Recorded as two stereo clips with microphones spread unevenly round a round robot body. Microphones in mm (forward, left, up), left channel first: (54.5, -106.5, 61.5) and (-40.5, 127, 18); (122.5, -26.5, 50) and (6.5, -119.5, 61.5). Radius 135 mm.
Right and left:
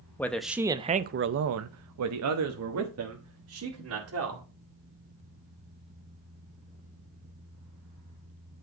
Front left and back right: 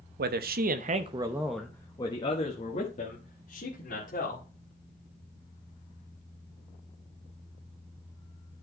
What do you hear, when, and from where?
0.2 s a man speaking: 155° right, 0.8 m; by 4.4 s 80° left, 2 m